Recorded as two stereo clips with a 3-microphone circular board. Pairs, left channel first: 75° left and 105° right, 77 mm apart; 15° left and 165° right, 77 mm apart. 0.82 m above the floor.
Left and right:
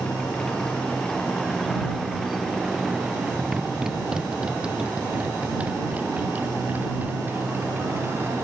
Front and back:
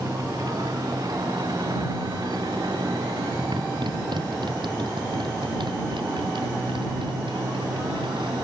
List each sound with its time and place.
0.0 s a motorcycle: 150° left; by 8.4 s 165° right